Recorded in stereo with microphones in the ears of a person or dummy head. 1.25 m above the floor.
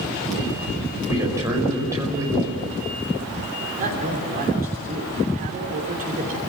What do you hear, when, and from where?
1.1 s a man speaking: 15° right (ahead or behind), 5 m
3.8 s a man speaking: 45° right (ahead or behind), 3 m